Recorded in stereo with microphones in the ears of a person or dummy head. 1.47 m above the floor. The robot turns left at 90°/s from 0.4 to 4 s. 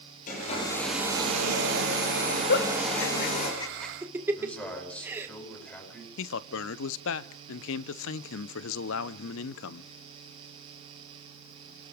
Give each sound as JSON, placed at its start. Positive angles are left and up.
{"t": 0.3, "sound": "a hair dryer", "azimuth_deg": 45, "distance_m": 10.0}
{"t": 2.5, "sound": "a giggle", "side_deg": 55, "distance_m": 1.7}
{"t": 4.3, "sound": "a man speaking", "side_deg": 10, "distance_m": 9.5}
{"t": 6.2, "sound": "a man speaking", "side_deg": 70, "distance_m": 0.8}